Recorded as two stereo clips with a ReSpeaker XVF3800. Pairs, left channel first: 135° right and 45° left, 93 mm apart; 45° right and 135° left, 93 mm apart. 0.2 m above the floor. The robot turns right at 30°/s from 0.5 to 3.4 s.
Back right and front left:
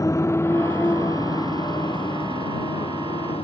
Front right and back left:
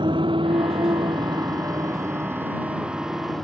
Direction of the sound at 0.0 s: 170° left.